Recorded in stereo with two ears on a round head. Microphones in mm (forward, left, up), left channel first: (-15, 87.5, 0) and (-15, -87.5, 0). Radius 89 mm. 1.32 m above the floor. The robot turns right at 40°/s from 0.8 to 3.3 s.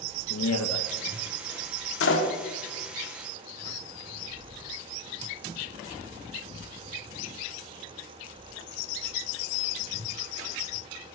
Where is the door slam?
75° left (ahead or behind), 2.5 m; by 2.3 s 65° left (ahead or behind), 2.5 m.